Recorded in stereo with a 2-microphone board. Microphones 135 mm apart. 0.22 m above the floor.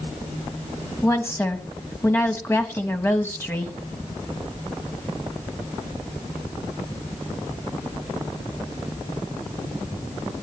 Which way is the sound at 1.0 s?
15° left (ahead or behind).